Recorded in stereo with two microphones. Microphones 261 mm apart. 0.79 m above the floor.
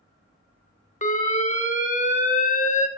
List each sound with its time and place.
1.0 s an alarm: 30° left (ahead or behind), 0.8 m